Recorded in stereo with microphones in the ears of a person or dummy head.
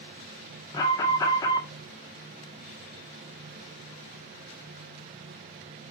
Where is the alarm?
25° left (ahead or behind), 2 m.